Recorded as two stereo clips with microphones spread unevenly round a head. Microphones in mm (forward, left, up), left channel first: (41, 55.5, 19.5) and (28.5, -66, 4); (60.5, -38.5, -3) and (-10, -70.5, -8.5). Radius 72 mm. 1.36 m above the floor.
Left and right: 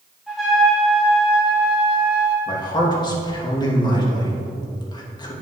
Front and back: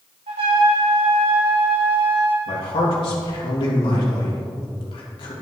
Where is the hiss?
No hiss in this recording.